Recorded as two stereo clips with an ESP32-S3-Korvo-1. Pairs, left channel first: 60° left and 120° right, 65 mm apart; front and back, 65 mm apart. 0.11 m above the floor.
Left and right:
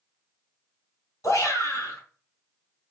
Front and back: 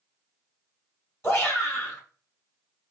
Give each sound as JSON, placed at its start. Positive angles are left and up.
{"t": 1.2, "sound": "a shout", "azimuth_deg": 40, "distance_m": 2.5}